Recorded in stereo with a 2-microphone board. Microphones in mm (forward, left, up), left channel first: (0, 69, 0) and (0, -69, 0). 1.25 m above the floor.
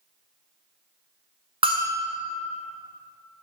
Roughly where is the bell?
Right.